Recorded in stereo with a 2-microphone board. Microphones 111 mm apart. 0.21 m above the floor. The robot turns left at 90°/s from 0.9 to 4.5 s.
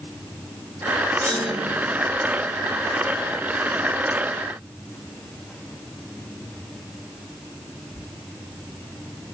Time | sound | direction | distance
1.2 | a clunk | 20° left | 3 m